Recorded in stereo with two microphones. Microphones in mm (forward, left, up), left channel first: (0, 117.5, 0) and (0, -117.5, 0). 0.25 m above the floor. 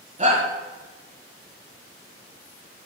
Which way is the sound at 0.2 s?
30° right (ahead or behind).